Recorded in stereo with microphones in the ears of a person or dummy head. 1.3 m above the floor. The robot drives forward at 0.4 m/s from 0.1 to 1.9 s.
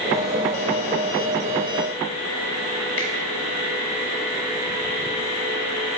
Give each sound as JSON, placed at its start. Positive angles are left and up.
{"t": 3.0, "sound": "a finger snap", "side_deg": 35, "distance_m": 2.0}